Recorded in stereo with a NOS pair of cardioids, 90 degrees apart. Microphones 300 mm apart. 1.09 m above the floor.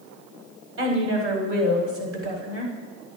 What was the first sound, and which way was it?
A woman speaking, 40° right.